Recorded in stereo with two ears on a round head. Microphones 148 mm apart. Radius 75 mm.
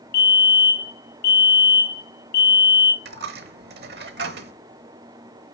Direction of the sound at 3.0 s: 70° right (ahead or behind).